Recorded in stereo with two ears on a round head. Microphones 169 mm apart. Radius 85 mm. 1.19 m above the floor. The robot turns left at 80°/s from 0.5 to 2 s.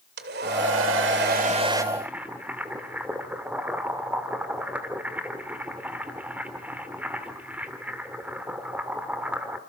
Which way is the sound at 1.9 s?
10° right (ahead or behind).